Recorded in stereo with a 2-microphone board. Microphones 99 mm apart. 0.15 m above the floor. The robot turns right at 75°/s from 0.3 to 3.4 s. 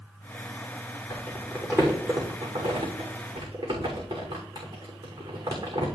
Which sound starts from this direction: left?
Crumpling, at 1.1 s.